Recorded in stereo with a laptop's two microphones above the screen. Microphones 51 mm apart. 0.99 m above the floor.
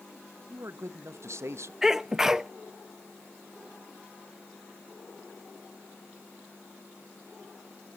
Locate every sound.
0.5 s a man speaking: 60° right (ahead or behind), 0.7 m
1.8 s a sneeze: 10° right (ahead or behind), 0.7 m